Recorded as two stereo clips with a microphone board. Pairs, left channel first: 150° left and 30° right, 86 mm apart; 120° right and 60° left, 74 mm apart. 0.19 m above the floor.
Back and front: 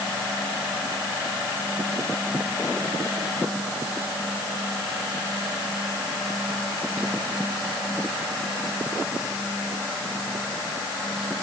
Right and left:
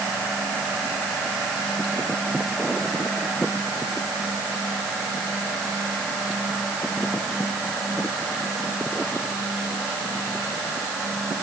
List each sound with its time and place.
Only background noise.